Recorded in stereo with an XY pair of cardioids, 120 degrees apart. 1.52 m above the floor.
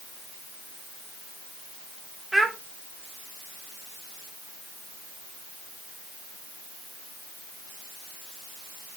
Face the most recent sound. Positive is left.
turn(degrees=-10)